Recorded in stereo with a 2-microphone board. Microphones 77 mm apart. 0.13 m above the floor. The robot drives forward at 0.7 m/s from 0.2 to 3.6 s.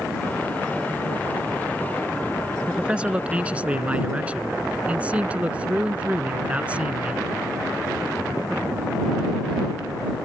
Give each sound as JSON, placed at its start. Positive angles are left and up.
{"t": 2.7, "sound": "a man speaking", "side_deg": -15}